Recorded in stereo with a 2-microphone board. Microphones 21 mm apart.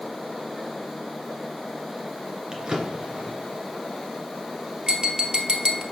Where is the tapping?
45° right (ahead or behind), 1.4 m.